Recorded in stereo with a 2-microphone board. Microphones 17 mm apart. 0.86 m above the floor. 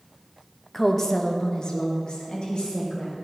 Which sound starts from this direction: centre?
A woman speaking, at 0.7 s.